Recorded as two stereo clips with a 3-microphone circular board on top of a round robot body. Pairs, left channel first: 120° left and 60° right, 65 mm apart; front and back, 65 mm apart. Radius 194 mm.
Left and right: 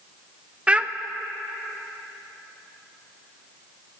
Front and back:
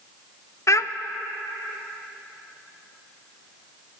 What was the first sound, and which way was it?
A child speaking, 5° left.